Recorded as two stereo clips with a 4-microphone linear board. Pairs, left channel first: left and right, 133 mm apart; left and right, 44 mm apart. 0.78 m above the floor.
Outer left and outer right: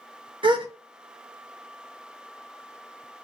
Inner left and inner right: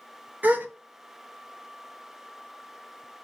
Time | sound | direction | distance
0.4 | a gasp | 40° right (ahead or behind) | 0.5 m